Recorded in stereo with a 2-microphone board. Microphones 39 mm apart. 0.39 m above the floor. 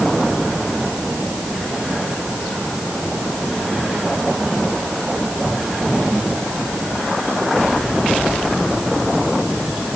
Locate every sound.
Only background noise.